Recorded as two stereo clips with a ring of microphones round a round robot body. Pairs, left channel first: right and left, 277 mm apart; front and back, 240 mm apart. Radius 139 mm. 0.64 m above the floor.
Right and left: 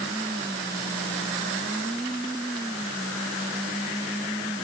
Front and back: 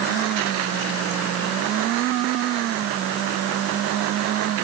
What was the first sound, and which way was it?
Only background noise.